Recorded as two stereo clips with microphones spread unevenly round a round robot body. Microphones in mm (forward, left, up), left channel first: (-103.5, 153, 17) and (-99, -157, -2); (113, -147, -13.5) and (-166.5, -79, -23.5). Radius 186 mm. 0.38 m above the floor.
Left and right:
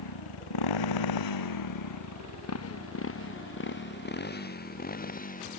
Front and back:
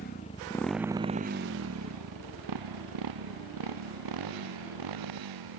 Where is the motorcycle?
55° left; by 5.6 s 155° left.